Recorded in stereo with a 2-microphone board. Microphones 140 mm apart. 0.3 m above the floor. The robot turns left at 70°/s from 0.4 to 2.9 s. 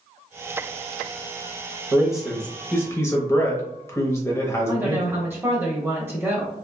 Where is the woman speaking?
20° right (ahead or behind), 1.2 m.